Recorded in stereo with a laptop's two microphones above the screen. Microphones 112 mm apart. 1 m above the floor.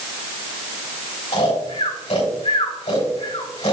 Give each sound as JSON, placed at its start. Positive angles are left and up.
{"t": 1.3, "sound": "snoring", "side_deg": 75, "distance_m": 3.0}